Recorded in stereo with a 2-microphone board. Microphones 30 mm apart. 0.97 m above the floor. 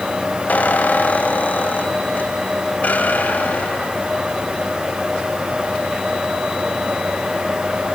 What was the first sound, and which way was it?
A squeak, 70° left (ahead or behind).